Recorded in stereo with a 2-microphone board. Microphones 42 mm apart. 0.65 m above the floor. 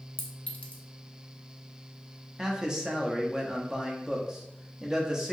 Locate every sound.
0.2 s a clink: 35° left (ahead or behind), 0.6 m
2.4 s a man speaking: 20° right (ahead or behind), 0.5 m